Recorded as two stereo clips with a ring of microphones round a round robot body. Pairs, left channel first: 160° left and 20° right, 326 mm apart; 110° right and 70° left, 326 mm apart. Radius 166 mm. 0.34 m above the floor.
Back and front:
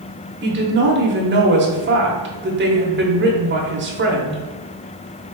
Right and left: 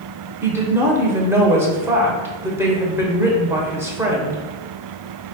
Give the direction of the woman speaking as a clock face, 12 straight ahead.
12 o'clock.